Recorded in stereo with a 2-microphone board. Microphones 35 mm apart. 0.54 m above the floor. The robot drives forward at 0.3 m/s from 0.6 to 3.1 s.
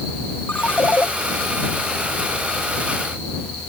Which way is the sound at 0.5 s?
55° left (ahead or behind).